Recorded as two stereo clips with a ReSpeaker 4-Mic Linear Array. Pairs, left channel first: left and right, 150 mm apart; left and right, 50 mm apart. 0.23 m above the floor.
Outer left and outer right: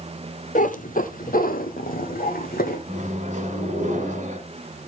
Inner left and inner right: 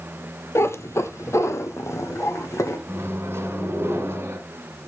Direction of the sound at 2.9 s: 50° right (ahead or behind).